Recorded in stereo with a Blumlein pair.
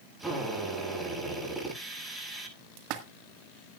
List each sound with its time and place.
0.2 s a drill: 5° right, 9.5 m
2.8 s a splash: 40° right, 1.8 m